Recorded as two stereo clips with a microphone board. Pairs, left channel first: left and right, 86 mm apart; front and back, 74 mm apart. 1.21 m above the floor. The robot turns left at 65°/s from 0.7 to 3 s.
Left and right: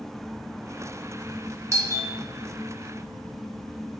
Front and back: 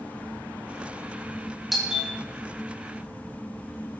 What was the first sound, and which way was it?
A doorbell, 90° right.